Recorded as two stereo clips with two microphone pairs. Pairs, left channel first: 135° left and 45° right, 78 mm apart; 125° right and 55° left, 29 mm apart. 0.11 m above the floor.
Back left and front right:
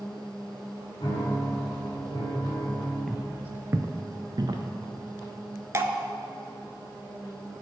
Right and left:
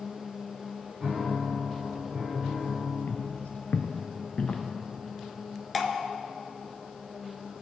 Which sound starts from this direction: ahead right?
Dripping, at 5.7 s.